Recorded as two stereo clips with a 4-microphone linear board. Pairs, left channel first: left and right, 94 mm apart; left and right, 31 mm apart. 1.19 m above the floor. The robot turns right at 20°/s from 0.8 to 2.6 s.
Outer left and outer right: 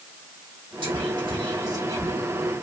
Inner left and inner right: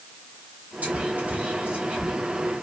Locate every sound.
0.8 s whispering: 60° right (ahead or behind), 1.4 m; by 2.1 s 35° right (ahead or behind), 1.4 m